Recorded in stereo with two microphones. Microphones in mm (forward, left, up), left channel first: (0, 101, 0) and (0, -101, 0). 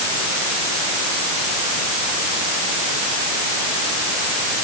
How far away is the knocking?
I don't hear knocking.